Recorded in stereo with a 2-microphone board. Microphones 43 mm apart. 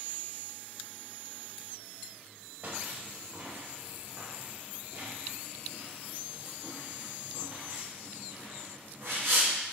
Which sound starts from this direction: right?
Footsteps, at 2.6 s.